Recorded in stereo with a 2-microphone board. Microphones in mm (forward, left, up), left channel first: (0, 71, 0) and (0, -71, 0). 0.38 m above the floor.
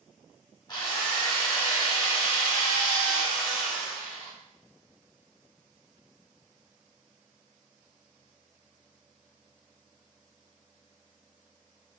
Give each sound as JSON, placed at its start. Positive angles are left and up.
{"t": 0.7, "sound": "a drill", "side_deg": 35, "distance_m": 0.9}